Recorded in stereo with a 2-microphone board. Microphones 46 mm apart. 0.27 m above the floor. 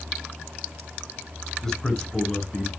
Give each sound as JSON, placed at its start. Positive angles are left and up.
{"t": 1.6, "sound": "a man speaking", "side_deg": 10, "distance_m": 3.5}